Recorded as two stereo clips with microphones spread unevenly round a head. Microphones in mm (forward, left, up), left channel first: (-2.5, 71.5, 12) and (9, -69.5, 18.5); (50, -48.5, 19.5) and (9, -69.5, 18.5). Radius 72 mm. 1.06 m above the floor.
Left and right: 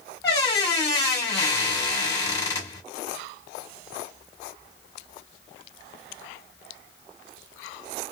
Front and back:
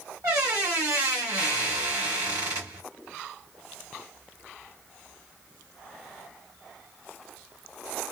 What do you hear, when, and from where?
0.2 s a squeak: 165° left, 1.4 m